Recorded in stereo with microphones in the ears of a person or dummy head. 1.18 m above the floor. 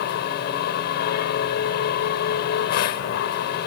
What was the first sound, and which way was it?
A machine running, 65° left (ahead or behind).